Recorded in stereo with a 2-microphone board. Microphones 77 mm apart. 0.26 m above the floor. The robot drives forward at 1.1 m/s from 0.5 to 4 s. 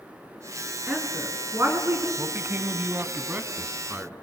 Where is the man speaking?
35° right (ahead or behind), 1.0 m; by 4.1 s 15° right (ahead or behind), 2 m.